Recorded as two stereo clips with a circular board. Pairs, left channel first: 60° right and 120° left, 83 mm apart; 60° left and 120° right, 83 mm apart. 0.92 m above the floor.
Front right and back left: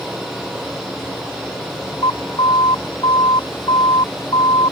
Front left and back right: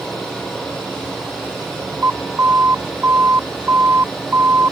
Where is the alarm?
60° right.